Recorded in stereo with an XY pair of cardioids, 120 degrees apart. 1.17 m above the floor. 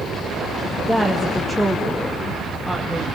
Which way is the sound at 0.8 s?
5° left.